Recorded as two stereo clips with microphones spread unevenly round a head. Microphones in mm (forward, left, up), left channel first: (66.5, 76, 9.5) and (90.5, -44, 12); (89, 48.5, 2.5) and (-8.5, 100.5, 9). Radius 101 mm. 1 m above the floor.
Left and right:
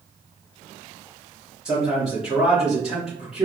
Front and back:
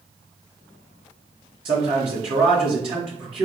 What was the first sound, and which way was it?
A man speaking, 165° right.